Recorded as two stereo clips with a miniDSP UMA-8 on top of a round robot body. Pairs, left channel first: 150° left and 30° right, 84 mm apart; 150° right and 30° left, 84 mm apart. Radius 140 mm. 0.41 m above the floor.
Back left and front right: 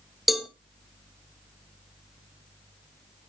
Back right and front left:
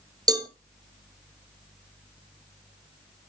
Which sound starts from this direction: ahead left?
A cowbell, at 0.3 s.